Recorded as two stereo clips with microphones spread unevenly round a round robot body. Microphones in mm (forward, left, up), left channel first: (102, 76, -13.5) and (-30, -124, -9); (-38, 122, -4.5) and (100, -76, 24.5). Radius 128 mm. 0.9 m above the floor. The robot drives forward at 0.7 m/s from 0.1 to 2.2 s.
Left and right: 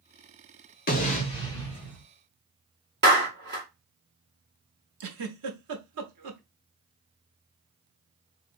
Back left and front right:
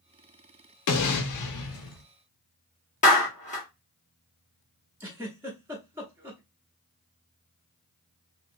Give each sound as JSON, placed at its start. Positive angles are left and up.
{"t": 0.9, "sound": "an explosion", "azimuth_deg": 110, "distance_m": 0.9}
{"t": 3.0, "sound": "a clap", "azimuth_deg": -175, "distance_m": 1.4}
{"t": 5.0, "sound": "a giggle", "azimuth_deg": -135, "distance_m": 0.8}